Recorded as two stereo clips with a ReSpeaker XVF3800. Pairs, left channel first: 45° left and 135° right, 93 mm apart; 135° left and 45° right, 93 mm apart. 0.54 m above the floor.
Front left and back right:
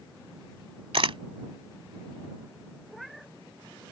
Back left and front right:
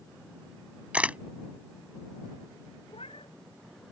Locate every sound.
0.9 s a camera shutter: 120° right
2.9 s a cat meowing: 135° left